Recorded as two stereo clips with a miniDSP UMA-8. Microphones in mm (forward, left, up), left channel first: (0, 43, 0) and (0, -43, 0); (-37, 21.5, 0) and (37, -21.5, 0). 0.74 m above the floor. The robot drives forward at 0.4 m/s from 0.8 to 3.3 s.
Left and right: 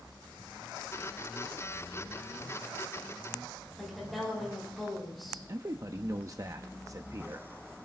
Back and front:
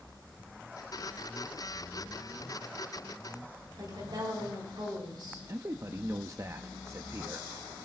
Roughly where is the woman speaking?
Ahead.